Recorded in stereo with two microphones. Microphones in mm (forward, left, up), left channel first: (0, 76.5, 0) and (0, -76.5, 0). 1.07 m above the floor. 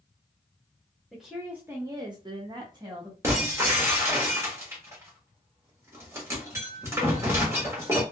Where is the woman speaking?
Centre (ahead or behind), 0.9 m; by 3.1 s 25° right (ahead or behind), 1.2 m.